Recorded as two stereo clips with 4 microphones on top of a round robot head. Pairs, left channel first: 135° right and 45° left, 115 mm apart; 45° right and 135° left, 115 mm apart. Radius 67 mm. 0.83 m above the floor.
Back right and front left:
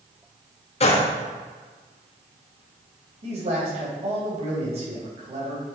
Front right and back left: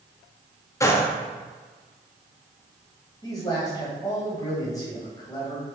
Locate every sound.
0.8 s a gunshot: 110° right, 1.3 m
3.2 s a man speaking: 10° left, 4 m